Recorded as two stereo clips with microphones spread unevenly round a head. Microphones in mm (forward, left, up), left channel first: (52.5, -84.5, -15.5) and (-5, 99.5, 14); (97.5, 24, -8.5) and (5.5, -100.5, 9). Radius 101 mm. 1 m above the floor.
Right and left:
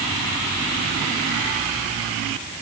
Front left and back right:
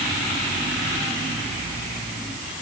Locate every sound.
Only background noise.